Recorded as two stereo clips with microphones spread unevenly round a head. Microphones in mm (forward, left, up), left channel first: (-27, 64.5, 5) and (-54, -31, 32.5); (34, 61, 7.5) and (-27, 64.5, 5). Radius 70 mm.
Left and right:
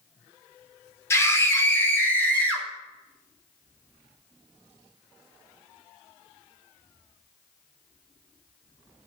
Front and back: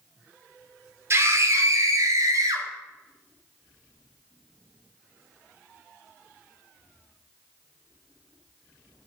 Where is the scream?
135° left, 3.5 m; by 2.7 s 150° left, 5 m.